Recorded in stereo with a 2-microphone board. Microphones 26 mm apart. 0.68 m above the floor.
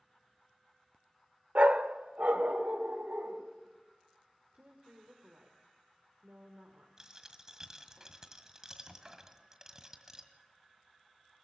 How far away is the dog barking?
About 0.7 m.